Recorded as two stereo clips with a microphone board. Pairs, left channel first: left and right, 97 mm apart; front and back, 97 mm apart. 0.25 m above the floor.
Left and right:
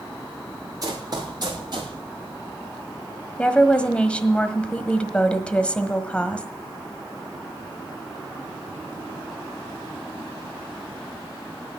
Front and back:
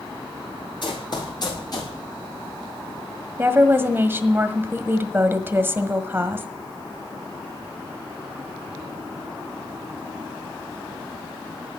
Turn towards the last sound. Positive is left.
turn(degrees=150)